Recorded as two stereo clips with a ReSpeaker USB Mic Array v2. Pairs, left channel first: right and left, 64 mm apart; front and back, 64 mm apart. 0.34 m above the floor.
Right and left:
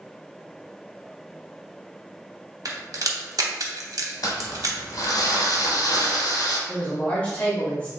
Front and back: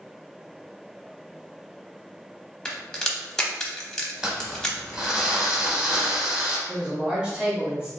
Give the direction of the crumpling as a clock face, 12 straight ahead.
4 o'clock.